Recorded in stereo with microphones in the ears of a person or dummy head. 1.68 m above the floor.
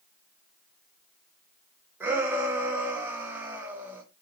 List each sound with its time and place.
2.0 s a shout: 10° right (ahead or behind), 3 m